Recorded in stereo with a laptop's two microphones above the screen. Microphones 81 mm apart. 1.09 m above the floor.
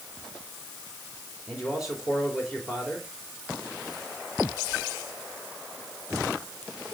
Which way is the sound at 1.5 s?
5° right (ahead or behind).